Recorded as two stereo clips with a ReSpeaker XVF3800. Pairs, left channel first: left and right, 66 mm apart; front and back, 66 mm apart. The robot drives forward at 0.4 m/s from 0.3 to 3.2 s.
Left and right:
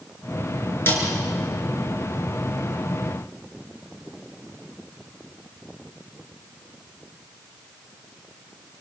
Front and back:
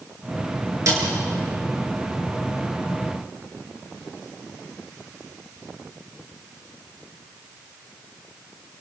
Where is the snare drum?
145° left, 7 m.